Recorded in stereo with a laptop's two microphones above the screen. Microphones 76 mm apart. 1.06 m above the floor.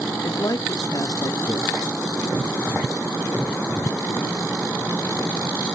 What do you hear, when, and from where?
0.2 s a man speaking: 55° left (ahead or behind), 0.5 m